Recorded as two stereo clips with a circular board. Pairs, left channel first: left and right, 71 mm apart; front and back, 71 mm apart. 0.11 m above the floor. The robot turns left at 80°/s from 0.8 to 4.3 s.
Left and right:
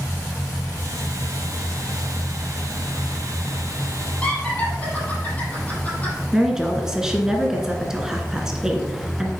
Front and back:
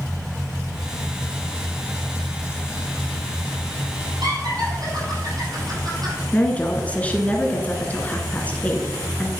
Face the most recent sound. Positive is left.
turn(degrees=-25)